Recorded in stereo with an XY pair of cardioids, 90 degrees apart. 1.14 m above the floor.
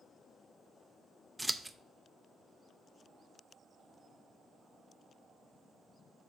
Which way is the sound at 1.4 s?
5° right.